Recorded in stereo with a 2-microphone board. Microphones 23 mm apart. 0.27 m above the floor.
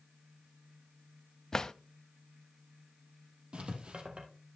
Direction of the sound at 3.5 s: 55° right (ahead or behind).